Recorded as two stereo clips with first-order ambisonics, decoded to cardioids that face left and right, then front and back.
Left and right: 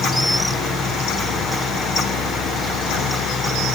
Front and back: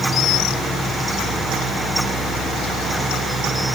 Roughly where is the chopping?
I don't hear chopping.